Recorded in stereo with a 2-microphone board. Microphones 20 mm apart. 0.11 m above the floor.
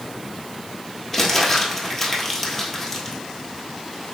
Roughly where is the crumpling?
Centre.